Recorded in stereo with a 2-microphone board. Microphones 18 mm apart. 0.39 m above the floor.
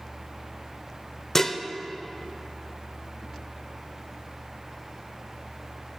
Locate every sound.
1.4 s dishes clattering: 15° left (ahead or behind), 0.7 m